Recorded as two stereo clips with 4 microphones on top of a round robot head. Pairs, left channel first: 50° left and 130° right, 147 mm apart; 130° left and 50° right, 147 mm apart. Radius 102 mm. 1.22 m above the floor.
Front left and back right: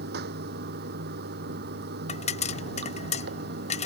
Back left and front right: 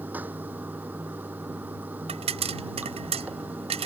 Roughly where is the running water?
Behind right.